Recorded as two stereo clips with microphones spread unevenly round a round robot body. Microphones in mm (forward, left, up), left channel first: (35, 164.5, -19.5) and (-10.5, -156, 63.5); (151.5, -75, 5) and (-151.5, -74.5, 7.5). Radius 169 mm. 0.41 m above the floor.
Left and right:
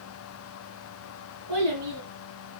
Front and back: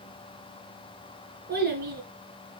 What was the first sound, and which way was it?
A child speaking, 120° right.